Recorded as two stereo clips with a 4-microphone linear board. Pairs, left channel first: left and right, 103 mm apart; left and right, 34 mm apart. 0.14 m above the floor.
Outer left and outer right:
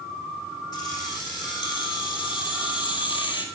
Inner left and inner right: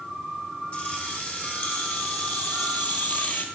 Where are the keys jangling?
45° left (ahead or behind), 5 m; by 3.5 s 55° left (ahead or behind), 2.5 m.